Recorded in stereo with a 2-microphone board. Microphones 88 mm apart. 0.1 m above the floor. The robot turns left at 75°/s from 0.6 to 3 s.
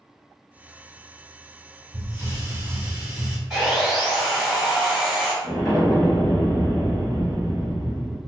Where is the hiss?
25° right (ahead or behind), 1.3 m; by 3.4 s 15° right (ahead or behind), 1.3 m.